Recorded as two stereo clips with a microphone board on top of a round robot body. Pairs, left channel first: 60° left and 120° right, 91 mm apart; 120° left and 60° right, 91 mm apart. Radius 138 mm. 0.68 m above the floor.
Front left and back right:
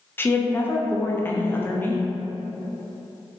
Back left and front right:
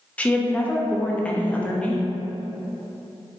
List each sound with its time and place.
0.2 s a woman speaking: 70° left, 0.6 m